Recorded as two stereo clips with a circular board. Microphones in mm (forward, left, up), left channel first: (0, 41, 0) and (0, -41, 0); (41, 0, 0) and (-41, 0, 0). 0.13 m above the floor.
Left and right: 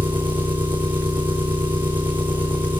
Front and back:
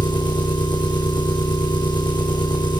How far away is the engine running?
About 4 m.